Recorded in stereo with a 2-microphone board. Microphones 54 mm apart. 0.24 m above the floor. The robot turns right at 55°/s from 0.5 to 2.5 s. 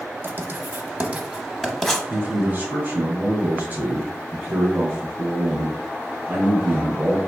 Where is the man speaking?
35° right (ahead or behind), 1.3 m.